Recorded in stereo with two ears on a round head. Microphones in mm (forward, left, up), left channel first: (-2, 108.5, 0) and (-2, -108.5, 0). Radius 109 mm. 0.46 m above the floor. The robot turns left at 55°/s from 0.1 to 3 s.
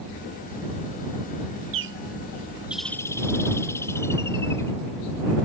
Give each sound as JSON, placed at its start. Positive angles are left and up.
{"t": 1.7, "sound": "a bird", "azimuth_deg": -120}